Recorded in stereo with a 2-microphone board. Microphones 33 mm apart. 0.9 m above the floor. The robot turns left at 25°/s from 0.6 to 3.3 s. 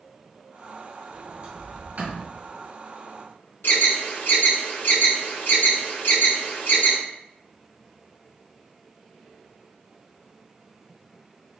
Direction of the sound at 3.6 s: 90° left.